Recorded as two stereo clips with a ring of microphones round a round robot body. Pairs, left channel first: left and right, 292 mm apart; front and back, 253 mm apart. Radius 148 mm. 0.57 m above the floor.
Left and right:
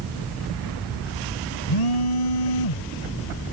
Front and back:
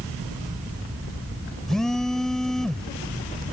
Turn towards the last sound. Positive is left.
turn(degrees=90)